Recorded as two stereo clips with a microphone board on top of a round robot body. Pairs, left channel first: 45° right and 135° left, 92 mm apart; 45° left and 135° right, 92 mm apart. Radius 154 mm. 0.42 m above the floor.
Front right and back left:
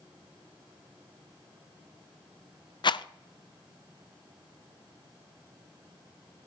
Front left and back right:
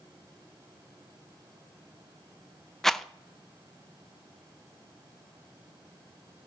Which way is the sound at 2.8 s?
40° right.